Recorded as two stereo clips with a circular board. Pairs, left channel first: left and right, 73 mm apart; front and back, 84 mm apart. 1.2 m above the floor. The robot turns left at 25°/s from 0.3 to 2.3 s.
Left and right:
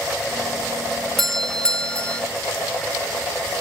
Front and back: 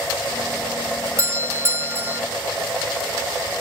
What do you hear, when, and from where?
1.2 s a doorbell: 170° left; by 2.2 s 145° left